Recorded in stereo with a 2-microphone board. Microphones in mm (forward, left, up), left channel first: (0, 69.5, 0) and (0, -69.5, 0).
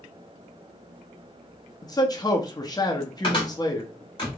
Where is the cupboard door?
35° left (ahead or behind), 1.7 m.